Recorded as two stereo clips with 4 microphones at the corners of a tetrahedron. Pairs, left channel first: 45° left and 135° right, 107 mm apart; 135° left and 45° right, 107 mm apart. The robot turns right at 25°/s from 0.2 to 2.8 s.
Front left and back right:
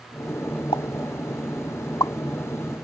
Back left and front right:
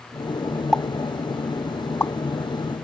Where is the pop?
45° left; by 2.1 s 80° left.